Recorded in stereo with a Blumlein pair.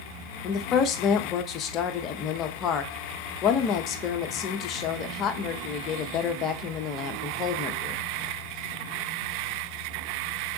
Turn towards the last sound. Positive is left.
turn(degrees=30)